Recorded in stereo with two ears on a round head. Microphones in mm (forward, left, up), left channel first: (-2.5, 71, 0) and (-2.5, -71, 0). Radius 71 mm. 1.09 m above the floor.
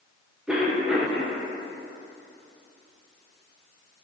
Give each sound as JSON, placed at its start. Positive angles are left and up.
{"t": 0.5, "sound": "a cough", "side_deg": -5, "distance_m": 0.9}